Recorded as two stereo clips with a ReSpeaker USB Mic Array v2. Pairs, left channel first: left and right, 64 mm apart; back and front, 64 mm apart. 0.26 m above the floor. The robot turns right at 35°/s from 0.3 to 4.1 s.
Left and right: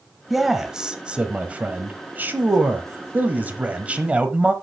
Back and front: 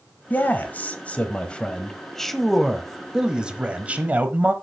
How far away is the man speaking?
About 1.1 m.